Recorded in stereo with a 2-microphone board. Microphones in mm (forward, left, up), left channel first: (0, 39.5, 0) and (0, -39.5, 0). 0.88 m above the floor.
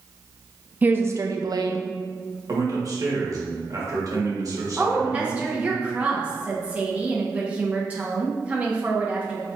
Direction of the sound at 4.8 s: 15° right (ahead or behind).